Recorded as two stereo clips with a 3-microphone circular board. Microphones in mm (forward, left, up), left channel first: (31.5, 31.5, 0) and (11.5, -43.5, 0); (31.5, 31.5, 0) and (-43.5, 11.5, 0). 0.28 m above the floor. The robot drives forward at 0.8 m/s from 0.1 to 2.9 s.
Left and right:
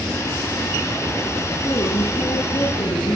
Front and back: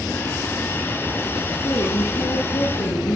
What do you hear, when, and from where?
1.6 s a woman speaking: 50° left, 9 m; by 3.2 s 55° left, 8 m